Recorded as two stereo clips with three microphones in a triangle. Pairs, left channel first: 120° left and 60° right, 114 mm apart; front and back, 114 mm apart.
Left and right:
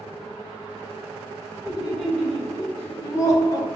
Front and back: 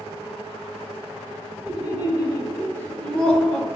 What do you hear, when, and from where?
1.6 s laughter: 25° left, 1.7 m; by 3.7 s 95° left, 1.4 m